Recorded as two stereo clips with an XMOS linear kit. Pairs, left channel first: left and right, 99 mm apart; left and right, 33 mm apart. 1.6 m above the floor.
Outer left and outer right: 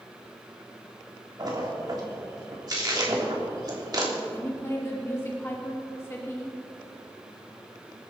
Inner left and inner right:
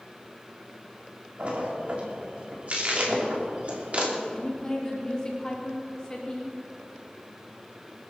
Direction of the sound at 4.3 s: 25° left (ahead or behind).